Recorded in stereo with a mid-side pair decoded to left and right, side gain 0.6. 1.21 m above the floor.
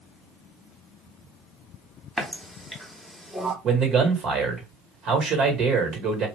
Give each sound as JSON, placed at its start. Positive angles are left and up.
{"t": 2.2, "sound": "a running tap", "azimuth_deg": -5, "distance_m": 1.1}
{"t": 3.6, "sound": "a man speaking", "azimuth_deg": -50, "distance_m": 1.7}